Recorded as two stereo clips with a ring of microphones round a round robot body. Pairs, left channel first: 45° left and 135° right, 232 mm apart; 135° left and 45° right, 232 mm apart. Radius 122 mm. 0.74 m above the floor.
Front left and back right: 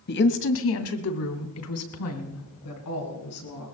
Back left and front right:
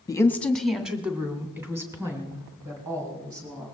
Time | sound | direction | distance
0.1 | a woman speaking | 65° left | 1.1 m